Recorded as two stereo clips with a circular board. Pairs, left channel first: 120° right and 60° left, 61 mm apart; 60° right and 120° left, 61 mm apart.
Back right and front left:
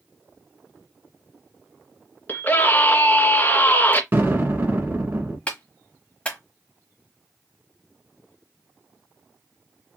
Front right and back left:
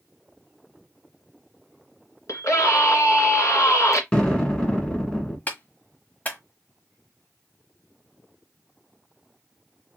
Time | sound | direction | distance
2.3 | a scream | 65° right | 2.5 m
4.1 | an explosion | 10° left | 2 m
5.5 | a clap | 80° right | 1.3 m